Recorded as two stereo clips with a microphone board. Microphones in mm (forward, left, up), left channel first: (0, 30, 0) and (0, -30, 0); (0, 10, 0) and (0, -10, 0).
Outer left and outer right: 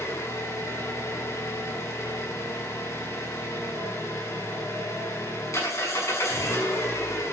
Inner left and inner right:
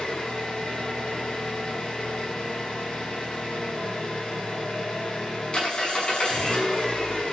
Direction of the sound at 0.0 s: 55° left (ahead or behind).